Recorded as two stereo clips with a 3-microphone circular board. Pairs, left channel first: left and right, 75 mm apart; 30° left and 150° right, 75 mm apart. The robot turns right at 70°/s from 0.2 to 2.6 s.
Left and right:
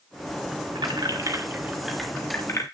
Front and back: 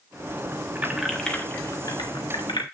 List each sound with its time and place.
0.8 s keys jangling: 85° right, 1.4 m; by 2.6 s 40° left, 1.4 m